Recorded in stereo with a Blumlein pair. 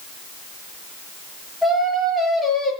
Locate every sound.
1.6 s singing: straight ahead, 7.5 m